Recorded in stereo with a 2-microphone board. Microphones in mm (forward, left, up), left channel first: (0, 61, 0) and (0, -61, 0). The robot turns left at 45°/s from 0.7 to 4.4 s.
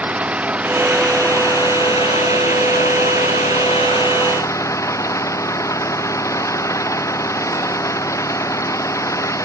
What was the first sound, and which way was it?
An engine running, 170° right.